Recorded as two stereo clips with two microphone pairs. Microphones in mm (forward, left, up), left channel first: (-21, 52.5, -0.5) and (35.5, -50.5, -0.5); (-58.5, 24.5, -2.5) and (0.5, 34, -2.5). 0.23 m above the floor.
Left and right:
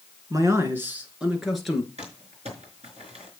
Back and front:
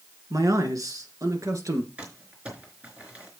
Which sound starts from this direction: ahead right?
Crumpling, at 2.0 s.